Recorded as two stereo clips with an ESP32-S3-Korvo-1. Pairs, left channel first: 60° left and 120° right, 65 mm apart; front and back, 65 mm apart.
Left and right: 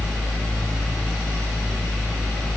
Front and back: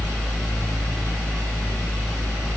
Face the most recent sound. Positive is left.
No sound to turn to.